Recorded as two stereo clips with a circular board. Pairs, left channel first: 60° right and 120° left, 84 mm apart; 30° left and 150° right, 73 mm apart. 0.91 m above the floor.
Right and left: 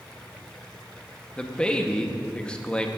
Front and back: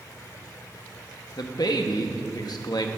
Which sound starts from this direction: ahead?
A man speaking, at 1.4 s.